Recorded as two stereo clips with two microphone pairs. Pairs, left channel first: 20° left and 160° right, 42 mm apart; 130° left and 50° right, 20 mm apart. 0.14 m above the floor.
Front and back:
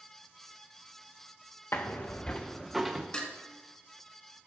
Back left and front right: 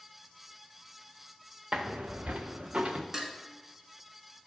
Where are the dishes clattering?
5° right, 1.0 m.